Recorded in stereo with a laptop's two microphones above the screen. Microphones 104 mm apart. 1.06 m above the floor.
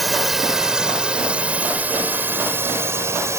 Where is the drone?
Centre (ahead or behind); by 3.4 s 30° right (ahead or behind).